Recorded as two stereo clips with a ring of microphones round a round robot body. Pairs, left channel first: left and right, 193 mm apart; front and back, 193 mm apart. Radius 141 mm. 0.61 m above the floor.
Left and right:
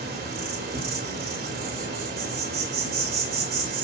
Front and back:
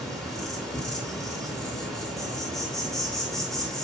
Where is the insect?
85° right, 2.5 m.